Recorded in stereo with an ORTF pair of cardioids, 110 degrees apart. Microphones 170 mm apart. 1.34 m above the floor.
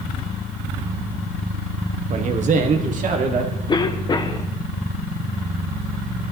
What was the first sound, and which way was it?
A man speaking, 45° right.